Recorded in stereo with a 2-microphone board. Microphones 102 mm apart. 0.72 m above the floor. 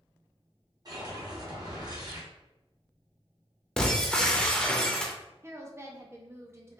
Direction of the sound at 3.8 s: 10° left (ahead or behind).